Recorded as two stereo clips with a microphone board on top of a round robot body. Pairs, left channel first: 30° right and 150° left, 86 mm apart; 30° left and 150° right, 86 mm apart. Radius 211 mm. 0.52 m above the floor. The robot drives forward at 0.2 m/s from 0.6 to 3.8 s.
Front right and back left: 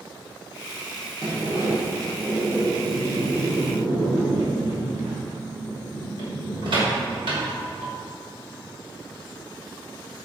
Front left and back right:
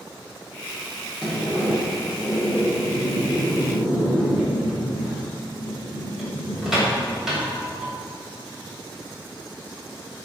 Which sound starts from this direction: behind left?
A sliding door, at 1.2 s.